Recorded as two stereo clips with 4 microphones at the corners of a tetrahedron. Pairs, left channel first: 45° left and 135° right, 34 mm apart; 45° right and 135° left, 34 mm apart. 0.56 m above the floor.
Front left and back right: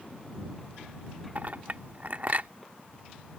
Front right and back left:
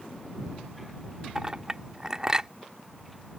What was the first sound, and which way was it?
A clink, 160° right.